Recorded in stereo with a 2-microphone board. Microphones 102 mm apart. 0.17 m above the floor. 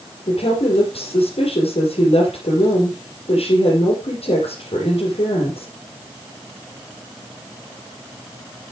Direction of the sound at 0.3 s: 75° left (ahead or behind).